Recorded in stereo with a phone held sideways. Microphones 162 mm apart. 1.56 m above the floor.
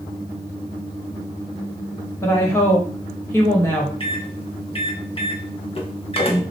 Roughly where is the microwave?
Left.